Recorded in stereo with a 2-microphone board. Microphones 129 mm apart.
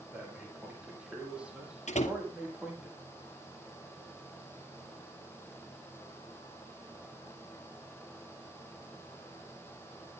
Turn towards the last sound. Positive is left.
turn(degrees=65)  # may be behind; listen again after turning